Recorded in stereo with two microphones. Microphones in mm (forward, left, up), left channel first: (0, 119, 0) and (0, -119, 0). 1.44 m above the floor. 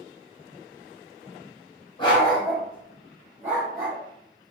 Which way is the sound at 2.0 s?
20° left (ahead or behind).